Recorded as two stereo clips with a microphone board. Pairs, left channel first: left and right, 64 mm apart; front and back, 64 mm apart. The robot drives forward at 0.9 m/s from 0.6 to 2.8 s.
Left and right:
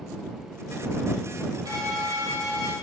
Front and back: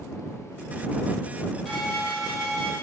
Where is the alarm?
90° right, 5 m; by 2.7 s 100° right, 5 m.